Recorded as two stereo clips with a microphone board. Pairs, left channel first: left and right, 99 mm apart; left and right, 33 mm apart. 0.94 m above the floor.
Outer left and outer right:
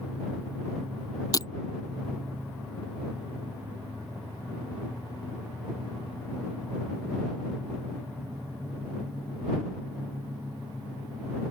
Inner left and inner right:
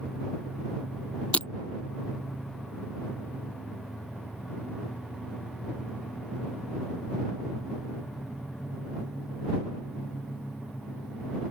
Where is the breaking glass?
35° left (ahead or behind).